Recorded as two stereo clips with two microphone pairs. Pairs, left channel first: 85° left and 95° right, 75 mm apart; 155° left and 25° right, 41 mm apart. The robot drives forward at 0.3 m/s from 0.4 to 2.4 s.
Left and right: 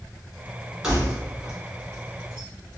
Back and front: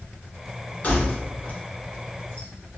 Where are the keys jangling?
175° right, 1.3 m.